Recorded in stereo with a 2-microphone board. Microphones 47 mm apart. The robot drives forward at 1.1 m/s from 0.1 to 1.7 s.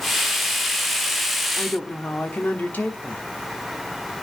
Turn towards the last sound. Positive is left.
turn(degrees=40)  # may be behind; listen again after turning